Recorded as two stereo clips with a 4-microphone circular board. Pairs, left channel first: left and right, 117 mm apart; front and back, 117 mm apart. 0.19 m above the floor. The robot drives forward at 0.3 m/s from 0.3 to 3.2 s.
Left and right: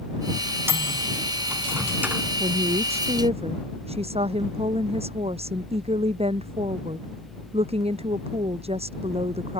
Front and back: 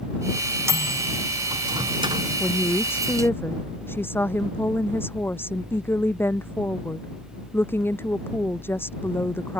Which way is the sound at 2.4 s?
70° right.